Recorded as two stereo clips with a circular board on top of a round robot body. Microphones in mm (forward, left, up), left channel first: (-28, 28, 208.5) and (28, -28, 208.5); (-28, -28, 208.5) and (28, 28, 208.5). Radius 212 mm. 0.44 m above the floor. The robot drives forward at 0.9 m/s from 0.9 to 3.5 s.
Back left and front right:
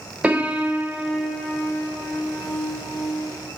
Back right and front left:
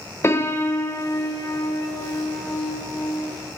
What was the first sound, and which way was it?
A piano, 105° right.